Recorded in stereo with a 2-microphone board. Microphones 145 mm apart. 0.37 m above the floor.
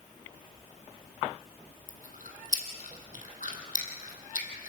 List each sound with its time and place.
1.9 s chewing: 70° left (ahead or behind), 2.5 m